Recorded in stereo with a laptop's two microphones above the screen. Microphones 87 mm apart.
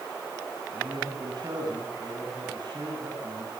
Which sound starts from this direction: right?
A man speaking, at 0.7 s.